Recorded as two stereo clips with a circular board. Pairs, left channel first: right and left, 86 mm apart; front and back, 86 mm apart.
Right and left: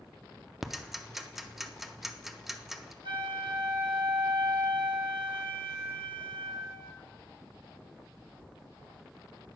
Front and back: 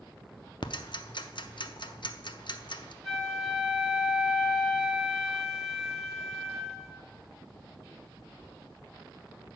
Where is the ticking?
5° left, 0.6 m.